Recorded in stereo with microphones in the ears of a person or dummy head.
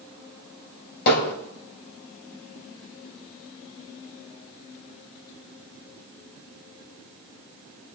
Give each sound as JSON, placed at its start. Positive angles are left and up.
{"t": 1.1, "sound": "hammering", "side_deg": 55, "distance_m": 4.0}